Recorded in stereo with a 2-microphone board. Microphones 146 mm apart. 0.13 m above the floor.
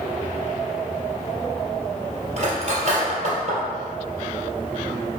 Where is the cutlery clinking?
50° right (ahead or behind), 1.8 m.